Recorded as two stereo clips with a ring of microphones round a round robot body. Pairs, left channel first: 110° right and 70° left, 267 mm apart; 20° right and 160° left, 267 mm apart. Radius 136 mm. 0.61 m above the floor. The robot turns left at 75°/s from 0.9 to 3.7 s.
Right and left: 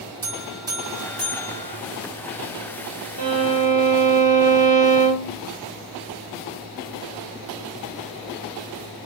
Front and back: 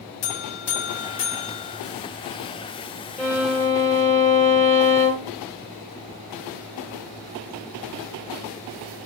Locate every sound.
0.2 s a buzzer: 5° right, 0.8 m; by 1.8 s 70° right, 0.8 m
3.2 s a violin: 65° left, 1.4 m; by 5.3 s 30° left, 1.4 m